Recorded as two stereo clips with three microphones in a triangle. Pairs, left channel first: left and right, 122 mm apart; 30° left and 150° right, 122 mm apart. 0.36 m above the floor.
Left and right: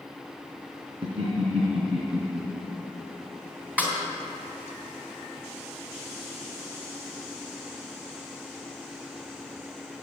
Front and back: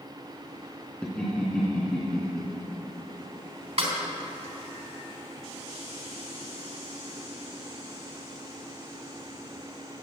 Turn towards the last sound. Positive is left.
turn(degrees=-165)